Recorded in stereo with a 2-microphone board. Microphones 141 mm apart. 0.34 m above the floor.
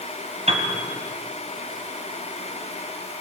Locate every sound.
0.5 s a piano: 50° right (ahead or behind), 3 m